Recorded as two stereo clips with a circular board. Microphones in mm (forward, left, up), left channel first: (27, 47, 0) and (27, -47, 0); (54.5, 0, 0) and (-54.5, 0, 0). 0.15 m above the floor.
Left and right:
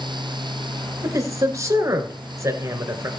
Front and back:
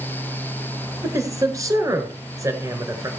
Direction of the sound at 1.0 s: 135° right.